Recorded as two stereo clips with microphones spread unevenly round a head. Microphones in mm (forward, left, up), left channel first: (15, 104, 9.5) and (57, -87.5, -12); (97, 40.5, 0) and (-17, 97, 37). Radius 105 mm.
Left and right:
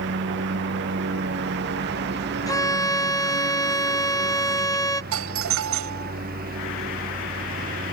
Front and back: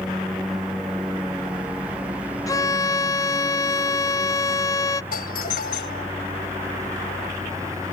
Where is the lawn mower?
120° right; by 7.9 s 130° right.